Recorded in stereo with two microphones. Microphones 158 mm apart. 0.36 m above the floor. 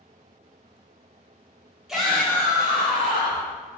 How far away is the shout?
About 1.6 m.